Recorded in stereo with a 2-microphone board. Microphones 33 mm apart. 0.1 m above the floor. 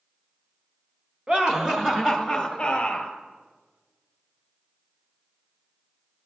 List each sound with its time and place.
1.3 s laughter: 30° right (ahead or behind), 1.2 m; by 3.1 s 30° left (ahead or behind), 1.4 m